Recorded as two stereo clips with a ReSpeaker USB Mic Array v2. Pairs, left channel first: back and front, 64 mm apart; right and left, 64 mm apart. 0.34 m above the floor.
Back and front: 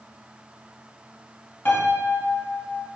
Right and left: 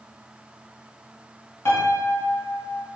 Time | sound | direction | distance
1.6 | a piano | 130° right | 0.7 m